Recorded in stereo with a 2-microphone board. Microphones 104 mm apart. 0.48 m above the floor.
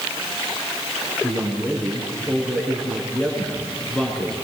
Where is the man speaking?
5° left (ahead or behind), 5.5 m.